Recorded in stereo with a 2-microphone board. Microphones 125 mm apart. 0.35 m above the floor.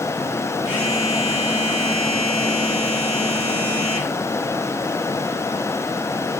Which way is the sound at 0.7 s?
55° left (ahead or behind).